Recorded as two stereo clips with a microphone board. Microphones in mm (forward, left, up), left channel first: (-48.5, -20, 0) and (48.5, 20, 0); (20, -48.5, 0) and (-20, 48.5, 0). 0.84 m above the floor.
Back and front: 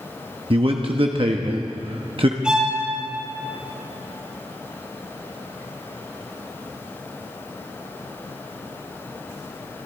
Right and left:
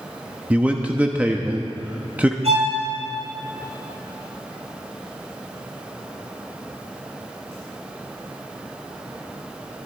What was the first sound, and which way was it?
A man speaking, 35° left.